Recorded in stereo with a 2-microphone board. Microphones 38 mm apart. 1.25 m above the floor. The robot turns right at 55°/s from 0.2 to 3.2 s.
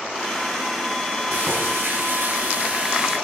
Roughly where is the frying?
Behind right.